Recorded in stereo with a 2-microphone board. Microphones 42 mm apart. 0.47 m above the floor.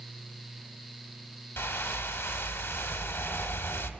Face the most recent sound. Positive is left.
turn(degrees=65)  # may be behind; listen again after turning